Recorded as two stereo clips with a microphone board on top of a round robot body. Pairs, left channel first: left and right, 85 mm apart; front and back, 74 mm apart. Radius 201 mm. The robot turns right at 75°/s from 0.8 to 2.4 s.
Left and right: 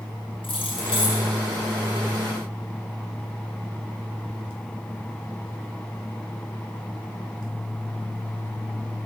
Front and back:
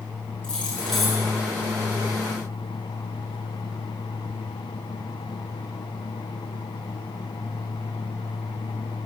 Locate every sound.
0.4 s keys jangling: 80° left, 7 m; by 1.2 s 110° left, 7 m